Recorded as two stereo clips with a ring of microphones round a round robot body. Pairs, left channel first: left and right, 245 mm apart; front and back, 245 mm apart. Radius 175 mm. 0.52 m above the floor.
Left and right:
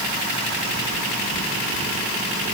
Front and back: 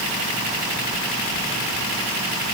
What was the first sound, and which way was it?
Only background noise.